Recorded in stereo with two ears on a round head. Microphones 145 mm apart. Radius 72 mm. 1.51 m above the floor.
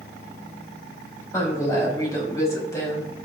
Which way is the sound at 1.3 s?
20° left (ahead or behind).